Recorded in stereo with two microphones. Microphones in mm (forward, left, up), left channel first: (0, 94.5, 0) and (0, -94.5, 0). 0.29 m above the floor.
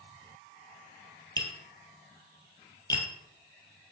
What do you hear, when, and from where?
1.4 s tapping: 15° left (ahead or behind), 2 m